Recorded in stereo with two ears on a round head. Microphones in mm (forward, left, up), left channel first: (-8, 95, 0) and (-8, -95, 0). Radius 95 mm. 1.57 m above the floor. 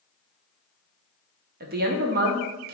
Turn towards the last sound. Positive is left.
turn(degrees=-45)  # may be behind; listen again after turning